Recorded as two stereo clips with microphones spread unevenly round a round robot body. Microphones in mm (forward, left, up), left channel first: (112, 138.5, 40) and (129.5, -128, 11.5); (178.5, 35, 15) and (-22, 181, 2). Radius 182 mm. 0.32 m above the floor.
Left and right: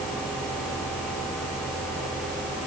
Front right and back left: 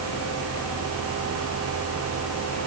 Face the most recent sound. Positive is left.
No sound to turn to.